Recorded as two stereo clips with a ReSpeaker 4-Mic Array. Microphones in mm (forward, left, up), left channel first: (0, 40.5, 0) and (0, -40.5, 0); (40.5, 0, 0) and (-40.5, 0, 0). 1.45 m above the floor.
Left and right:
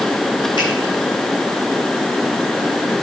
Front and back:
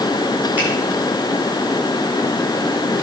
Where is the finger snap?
115° left, 7 m.